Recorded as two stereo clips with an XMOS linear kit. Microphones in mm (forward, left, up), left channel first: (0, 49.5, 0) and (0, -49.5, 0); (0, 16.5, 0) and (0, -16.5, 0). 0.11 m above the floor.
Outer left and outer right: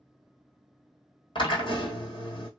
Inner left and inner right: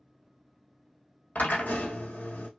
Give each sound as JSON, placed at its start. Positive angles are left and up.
{"t": 1.4, "sound": "a drill", "side_deg": 55, "distance_m": 1.3}